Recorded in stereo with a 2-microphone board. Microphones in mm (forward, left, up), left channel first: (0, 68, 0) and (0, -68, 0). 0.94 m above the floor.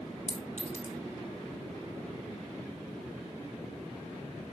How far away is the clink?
About 3 m.